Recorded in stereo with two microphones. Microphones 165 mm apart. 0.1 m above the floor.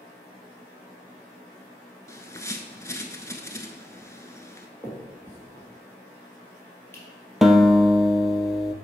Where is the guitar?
Centre (ahead or behind), 0.6 m.